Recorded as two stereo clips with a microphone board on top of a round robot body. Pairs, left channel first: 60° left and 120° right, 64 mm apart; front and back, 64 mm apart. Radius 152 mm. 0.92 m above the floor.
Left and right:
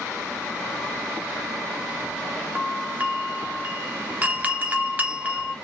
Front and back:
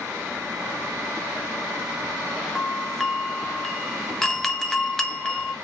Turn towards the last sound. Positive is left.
turn(degrees=-80)